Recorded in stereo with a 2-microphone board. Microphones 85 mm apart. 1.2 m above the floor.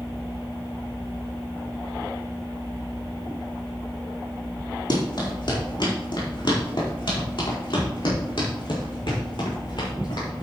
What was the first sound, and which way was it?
Running footsteps, 60° left (ahead or behind).